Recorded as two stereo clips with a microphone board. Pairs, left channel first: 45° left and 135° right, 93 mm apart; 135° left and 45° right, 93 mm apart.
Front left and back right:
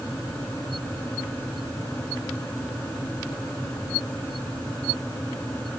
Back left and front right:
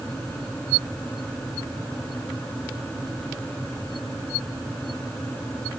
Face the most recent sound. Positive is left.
No sound to turn to.